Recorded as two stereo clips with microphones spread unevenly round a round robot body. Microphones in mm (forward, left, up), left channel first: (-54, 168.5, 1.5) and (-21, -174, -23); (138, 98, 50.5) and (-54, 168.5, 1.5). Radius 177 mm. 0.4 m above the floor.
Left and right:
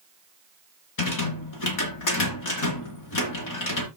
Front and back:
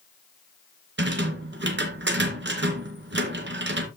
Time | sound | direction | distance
1.0 | a rattle | 130° left | 2.5 m